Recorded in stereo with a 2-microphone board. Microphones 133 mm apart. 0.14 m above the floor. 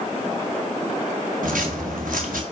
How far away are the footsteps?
About 1.8 m.